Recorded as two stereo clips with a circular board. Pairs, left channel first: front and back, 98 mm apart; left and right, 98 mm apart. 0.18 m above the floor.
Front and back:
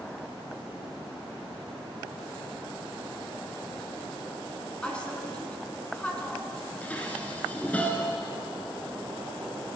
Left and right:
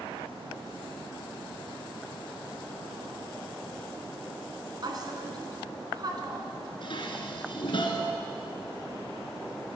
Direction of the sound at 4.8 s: 75° right.